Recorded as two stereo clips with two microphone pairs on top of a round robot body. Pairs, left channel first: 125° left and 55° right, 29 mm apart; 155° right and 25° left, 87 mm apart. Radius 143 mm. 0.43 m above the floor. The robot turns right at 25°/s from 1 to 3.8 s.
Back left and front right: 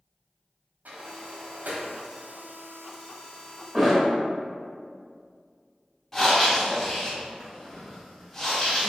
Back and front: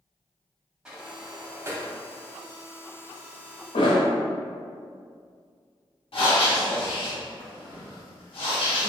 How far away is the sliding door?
About 0.7 m.